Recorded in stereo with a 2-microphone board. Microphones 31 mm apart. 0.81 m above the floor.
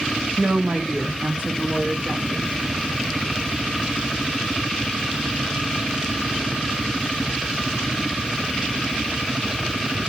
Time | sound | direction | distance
0.4 | a woman speaking | 55° right (ahead or behind) | 0.9 m